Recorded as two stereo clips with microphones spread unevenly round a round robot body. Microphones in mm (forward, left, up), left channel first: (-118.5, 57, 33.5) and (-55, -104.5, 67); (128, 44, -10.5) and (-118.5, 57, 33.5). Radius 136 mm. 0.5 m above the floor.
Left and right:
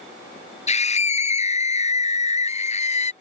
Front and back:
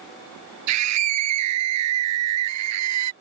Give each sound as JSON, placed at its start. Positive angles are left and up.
{"t": 0.7, "sound": "a scream", "azimuth_deg": 160}